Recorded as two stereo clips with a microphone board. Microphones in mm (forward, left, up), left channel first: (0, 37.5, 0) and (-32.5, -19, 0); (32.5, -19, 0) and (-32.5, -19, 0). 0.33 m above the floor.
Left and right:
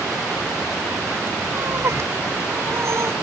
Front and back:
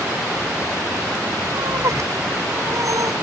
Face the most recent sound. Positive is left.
turn(degrees=-160)